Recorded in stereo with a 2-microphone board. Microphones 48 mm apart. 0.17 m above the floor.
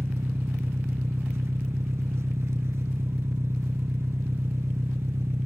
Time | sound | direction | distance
0.0 | an engine running | 65° right (ahead or behind) | 1.1 m